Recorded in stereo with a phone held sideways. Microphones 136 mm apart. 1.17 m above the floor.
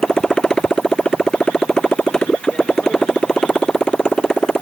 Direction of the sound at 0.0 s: 5° left (ahead or behind).